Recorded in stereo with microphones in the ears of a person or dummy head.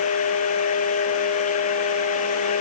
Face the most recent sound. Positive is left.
No sound to turn to.